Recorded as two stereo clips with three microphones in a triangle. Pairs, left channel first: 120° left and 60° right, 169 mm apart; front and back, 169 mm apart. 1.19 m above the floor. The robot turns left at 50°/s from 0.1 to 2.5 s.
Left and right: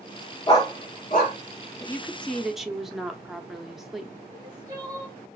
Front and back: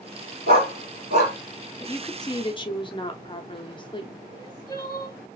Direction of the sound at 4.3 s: 35° right.